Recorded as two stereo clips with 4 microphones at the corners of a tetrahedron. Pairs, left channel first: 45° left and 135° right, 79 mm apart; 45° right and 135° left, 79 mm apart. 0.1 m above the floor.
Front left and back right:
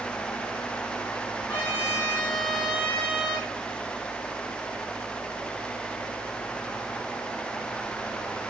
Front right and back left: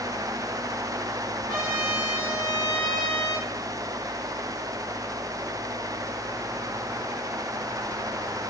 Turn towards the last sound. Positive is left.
turn(degrees=-30)